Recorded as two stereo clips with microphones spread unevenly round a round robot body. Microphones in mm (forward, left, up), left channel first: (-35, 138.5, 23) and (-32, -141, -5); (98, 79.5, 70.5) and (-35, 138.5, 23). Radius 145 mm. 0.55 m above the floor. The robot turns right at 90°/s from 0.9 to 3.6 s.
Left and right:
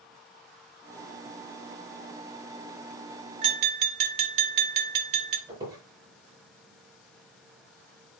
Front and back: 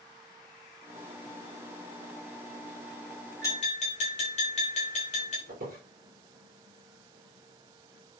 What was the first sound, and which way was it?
Tapping, 105° right.